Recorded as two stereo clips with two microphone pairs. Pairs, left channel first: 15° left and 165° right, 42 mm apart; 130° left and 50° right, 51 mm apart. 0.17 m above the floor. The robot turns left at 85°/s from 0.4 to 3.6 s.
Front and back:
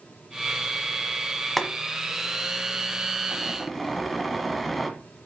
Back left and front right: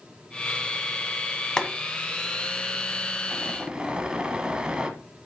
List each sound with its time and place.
1.6 s boiling: 100° left, 1.6 m; by 4.9 s 75° right, 1.6 m